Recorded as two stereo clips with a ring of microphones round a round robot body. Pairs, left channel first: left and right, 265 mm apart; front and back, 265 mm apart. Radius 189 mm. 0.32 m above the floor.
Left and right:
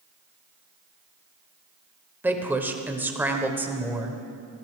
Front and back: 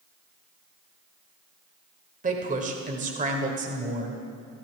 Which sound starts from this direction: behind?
A woman speaking, at 2.2 s.